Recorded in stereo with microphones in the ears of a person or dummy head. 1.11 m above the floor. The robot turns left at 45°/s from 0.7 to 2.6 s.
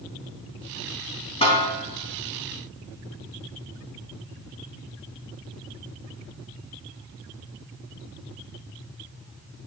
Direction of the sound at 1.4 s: 30° left (ahead or behind).